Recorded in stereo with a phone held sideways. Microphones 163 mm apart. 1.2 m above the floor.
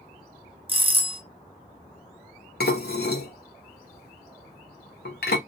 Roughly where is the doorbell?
Right.